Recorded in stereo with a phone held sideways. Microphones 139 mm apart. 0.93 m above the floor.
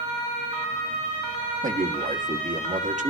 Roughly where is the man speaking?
Right.